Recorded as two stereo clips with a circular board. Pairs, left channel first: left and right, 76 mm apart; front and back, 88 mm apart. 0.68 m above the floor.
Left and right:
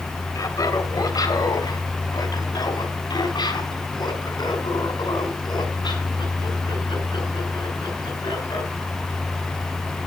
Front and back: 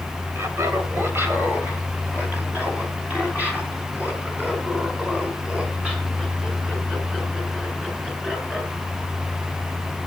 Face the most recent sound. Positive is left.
turn(degrees=100)